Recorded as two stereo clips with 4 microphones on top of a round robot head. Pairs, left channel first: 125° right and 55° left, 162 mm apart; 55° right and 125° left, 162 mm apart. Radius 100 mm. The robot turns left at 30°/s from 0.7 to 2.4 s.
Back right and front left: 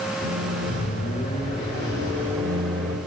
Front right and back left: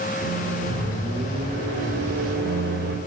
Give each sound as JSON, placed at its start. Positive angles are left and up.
{"t": 0.2, "sound": "a microwave", "azimuth_deg": -160, "distance_m": 3.5}